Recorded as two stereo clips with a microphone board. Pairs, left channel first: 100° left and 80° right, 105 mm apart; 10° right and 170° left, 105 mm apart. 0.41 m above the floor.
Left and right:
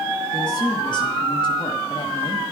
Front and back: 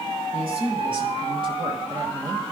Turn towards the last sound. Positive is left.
turn(degrees=120)